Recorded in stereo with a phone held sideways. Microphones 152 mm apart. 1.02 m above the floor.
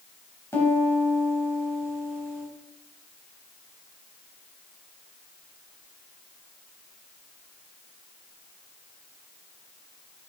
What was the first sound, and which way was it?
A piano, 20° left (ahead or behind).